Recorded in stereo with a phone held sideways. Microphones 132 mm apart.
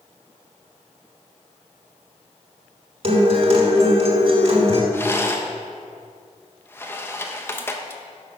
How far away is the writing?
I don't hear writing.